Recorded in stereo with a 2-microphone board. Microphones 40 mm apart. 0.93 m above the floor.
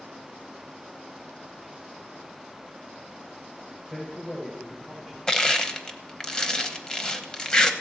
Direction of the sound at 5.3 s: 20° left (ahead or behind).